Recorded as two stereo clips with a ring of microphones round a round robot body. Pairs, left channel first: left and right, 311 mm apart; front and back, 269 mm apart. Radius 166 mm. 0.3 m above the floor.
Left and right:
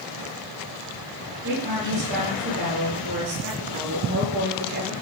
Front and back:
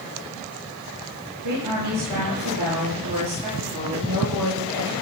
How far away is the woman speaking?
About 9 m.